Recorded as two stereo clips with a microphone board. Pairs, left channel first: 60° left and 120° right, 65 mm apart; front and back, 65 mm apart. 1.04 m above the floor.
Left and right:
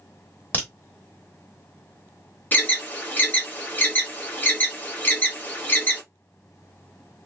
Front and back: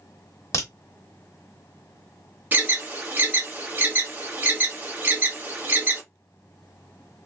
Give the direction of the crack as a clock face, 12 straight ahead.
12 o'clock.